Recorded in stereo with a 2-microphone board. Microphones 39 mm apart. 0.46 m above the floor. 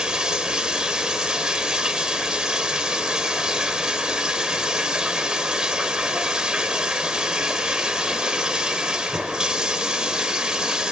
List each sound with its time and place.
0.0 s running water: 20° right (ahead or behind), 1.2 m